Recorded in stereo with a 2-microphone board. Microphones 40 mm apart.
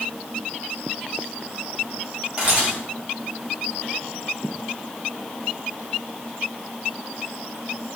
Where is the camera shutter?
30° right (ahead or behind), 1.4 m.